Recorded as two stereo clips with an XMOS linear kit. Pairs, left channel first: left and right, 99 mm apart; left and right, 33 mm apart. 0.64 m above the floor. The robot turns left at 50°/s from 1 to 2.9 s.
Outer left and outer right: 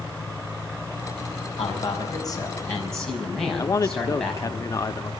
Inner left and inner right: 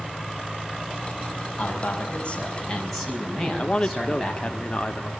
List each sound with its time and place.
1.6 s a man speaking: 70° left, 5.5 m; by 4.6 s 5° left, 5.5 m
3.6 s a man speaking: 30° left (ahead or behind), 0.8 m